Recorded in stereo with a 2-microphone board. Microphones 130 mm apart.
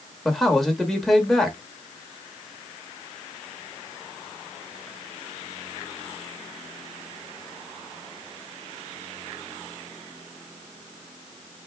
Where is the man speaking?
Centre (ahead or behind), 1.0 m.